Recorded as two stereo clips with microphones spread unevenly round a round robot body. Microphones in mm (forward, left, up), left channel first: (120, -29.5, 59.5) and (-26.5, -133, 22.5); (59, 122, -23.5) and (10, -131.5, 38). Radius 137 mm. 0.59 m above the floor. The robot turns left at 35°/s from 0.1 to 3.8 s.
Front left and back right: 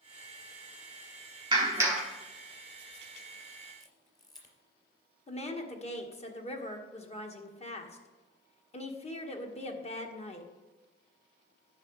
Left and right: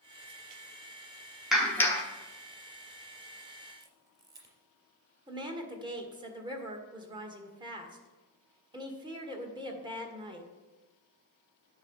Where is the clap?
160° left, 1.1 m; by 2.0 s 140° left, 1.1 m.